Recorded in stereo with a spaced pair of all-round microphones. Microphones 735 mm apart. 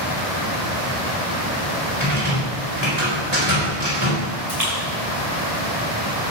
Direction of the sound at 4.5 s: 60° right (ahead or behind).